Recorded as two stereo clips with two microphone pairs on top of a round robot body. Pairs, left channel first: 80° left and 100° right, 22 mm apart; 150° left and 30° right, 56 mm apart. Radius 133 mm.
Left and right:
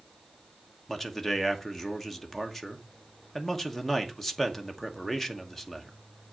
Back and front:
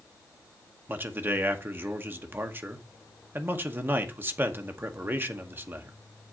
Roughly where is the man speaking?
Ahead.